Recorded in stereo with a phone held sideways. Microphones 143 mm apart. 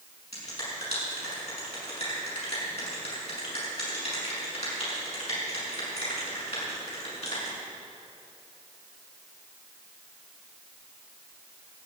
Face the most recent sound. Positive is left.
turn(degrees=50)  # may be behind; listen again after turning